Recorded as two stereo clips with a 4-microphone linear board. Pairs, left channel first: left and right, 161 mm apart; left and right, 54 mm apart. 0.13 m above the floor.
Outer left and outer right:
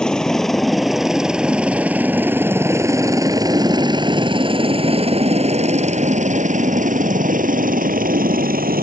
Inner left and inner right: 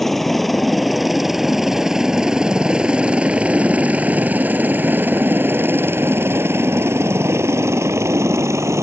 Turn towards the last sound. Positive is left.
turn(degrees=-65)  # may be behind; listen again after turning